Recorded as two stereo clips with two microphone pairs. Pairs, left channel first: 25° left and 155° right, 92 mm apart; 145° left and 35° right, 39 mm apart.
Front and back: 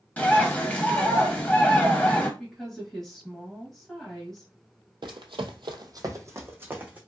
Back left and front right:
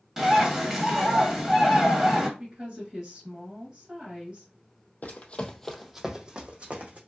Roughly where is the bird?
Ahead.